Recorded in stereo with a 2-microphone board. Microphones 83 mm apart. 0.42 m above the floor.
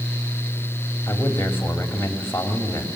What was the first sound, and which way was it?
A man speaking, 25° left (ahead or behind).